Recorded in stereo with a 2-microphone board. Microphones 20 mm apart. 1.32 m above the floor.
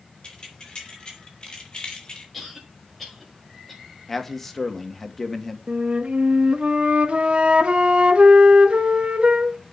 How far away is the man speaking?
About 1.8 m.